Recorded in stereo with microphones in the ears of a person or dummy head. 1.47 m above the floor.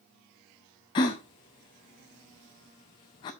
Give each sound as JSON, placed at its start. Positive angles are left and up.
{"t": 0.9, "sound": "a gasp", "side_deg": 20, "distance_m": 0.9}